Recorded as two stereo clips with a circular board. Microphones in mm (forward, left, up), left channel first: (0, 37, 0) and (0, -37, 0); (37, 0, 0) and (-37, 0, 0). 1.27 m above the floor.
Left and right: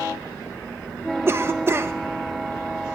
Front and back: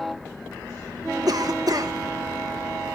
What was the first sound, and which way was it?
A cough, 145° right.